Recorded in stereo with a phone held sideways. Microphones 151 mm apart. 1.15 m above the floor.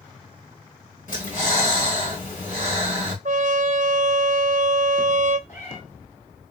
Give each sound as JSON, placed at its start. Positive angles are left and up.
{"t": 1.1, "sound": "breathing", "side_deg": 60, "distance_m": 3.0}
{"t": 3.2, "sound": "a trumpet", "side_deg": -60, "distance_m": 0.6}
{"t": 5.5, "sound": "a cat meowing", "side_deg": 55, "distance_m": 3.0}